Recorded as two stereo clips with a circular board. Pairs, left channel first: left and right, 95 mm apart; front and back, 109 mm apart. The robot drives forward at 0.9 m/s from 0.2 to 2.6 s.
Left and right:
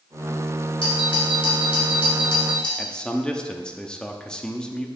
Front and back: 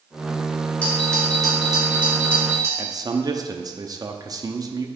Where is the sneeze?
I don't hear a sneeze.